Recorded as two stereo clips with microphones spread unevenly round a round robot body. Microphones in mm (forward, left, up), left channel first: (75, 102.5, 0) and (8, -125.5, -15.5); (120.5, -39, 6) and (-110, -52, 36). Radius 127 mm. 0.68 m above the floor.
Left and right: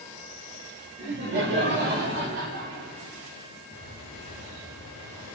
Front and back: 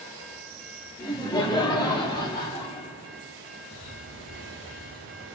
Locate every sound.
1.0 s laughter: 65° right, 2 m
3.7 s a bird: 155° right, 3.5 m